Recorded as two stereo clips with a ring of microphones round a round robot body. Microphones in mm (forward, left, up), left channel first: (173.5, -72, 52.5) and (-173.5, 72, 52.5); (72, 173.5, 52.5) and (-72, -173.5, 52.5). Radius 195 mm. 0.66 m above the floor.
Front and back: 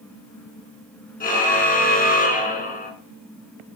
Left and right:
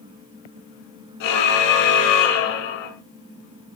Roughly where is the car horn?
Ahead left.